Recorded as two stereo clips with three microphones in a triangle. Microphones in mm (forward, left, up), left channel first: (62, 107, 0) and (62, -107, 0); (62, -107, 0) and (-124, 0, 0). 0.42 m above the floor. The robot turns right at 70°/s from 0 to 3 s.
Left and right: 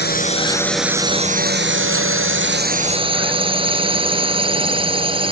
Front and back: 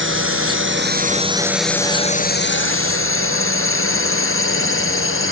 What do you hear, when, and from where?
0.0 s a drone: 125° left; by 5.3 s 25° right